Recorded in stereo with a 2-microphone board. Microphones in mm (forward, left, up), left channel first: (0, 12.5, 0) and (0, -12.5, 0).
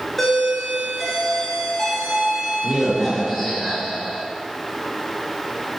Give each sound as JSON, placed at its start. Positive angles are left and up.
{"t": 0.2, "sound": "a doorbell", "side_deg": 10, "distance_m": 5.5}